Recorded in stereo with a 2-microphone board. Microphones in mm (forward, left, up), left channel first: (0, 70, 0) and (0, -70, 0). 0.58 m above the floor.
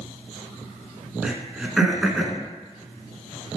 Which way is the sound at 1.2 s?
5° right (ahead or behind).